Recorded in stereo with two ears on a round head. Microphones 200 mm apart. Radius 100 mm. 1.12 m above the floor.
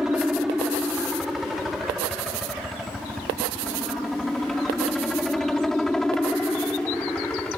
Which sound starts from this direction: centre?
A helicopter, at 0.0 s.